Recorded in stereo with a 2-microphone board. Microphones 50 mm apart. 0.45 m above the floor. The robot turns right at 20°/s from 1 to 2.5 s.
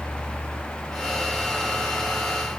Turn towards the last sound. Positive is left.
No sound to turn to.